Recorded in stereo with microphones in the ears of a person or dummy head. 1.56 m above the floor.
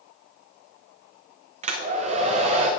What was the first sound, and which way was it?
A hair dryer, 45° right (ahead or behind).